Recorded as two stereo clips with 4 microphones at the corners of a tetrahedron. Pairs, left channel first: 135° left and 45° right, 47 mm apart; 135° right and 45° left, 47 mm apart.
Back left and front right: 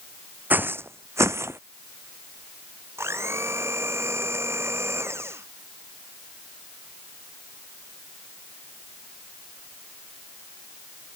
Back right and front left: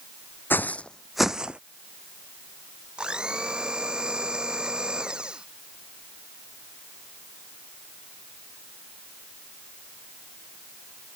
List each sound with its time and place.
0.5 s footsteps: 95° right; by 1.6 s 20° right
3.0 s a blender: 25° right